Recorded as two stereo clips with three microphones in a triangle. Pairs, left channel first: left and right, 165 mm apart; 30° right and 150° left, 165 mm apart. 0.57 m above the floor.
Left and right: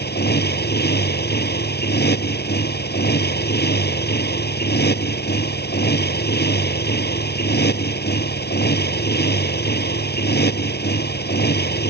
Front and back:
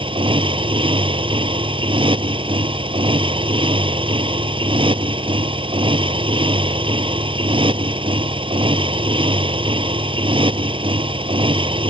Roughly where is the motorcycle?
Left.